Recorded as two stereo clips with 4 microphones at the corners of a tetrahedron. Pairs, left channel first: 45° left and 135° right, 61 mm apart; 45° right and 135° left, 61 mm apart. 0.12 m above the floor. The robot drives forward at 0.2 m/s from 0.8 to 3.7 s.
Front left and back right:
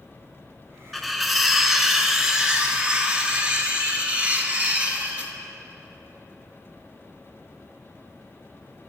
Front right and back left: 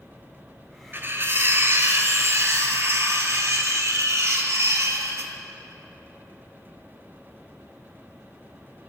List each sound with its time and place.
0.9 s cutlery clinking: 135° left, 0.8 m; by 5.3 s 160° left, 1.1 m